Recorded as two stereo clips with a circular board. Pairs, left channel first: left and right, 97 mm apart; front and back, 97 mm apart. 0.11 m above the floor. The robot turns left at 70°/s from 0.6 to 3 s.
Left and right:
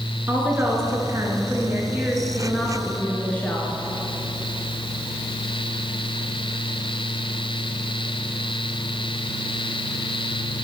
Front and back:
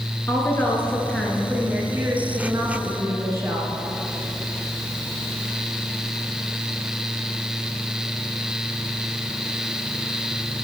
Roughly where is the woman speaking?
Ahead right.